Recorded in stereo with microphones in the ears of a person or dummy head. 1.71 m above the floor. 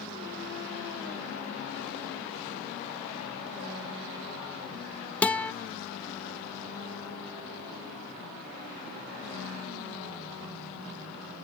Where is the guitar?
10° left (ahead or behind).